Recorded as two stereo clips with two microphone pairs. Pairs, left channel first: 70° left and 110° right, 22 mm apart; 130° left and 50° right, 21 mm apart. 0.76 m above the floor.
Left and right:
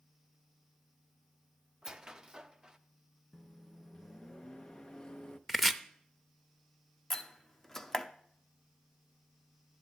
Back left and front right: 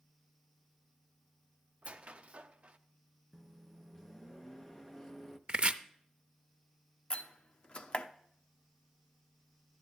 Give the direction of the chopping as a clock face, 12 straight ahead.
1 o'clock.